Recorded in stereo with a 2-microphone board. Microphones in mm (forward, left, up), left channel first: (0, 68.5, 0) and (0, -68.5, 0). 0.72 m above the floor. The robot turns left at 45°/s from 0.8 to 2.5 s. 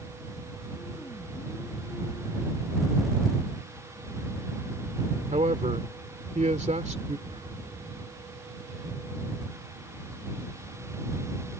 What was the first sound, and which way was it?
A man speaking, 70° right (ahead or behind).